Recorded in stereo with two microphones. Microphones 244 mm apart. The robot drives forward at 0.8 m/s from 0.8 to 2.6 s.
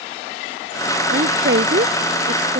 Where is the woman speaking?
50° right (ahead or behind); by 2.6 s 45° right (ahead or behind).